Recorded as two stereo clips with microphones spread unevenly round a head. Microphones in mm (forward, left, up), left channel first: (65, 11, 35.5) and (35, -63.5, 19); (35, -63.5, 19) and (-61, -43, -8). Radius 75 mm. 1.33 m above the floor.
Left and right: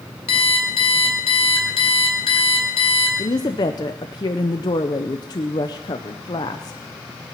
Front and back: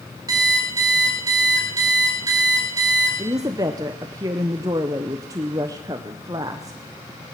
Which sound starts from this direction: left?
An alarm clock, at 0.3 s.